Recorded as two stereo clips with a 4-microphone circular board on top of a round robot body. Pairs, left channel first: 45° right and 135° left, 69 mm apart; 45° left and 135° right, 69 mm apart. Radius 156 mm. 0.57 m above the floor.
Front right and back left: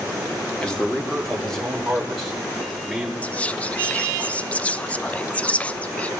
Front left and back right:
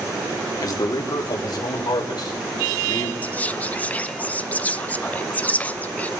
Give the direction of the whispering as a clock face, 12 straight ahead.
12 o'clock.